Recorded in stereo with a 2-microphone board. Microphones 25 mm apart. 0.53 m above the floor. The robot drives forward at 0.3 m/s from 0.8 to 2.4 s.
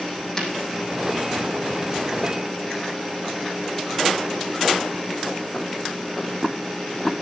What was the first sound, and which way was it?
Breaking glass, 25° left (ahead or behind).